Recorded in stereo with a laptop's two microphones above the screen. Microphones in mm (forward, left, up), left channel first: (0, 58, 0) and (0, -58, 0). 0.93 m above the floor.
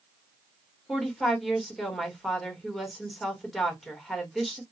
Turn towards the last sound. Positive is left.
turn(degrees=0)  # may be behind; listen again after turning